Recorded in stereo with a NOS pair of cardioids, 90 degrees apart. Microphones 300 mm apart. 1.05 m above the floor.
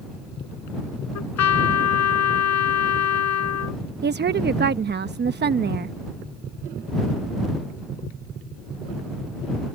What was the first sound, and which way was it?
A trumpet, 60° left.